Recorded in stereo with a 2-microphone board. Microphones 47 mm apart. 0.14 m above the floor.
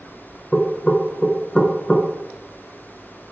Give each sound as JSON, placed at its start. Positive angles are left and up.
{"t": 0.5, "sound": "knocking", "side_deg": 20, "distance_m": 1.1}